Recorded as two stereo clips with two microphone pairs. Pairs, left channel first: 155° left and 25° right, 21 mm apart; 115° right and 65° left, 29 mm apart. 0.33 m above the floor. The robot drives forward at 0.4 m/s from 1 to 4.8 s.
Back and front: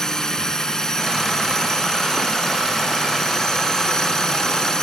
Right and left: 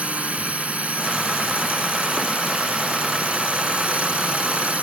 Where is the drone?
95° left; by 4.8 s 100° left.